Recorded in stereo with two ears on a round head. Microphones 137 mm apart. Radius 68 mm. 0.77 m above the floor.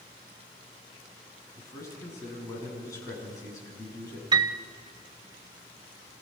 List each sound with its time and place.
1.6 s a man speaking: 20° left (ahead or behind), 8 m
4.3 s a piano: 30° right (ahead or behind), 0.7 m